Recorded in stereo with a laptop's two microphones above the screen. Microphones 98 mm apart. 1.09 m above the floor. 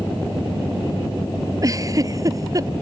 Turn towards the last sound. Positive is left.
turn(degrees=-35)  # may be behind; listen again after turning